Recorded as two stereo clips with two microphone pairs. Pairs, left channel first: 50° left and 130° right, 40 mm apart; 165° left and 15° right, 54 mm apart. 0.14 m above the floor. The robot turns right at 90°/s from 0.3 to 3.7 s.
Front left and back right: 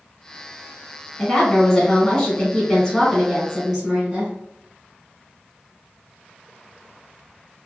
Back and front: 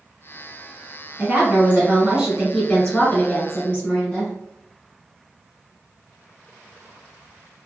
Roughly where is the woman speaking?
Ahead right.